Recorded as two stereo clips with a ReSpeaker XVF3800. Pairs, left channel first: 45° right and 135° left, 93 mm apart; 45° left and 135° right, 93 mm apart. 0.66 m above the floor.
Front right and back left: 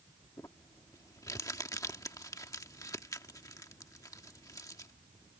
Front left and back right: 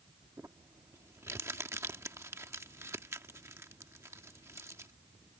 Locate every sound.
0.4 s crumpling: 85° right